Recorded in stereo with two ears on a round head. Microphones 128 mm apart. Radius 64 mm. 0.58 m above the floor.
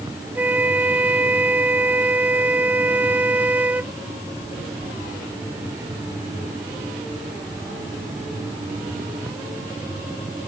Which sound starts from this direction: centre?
A flute, at 0.3 s.